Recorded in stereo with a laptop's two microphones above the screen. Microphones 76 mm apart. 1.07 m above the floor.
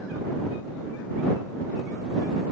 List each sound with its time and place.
Only background noise.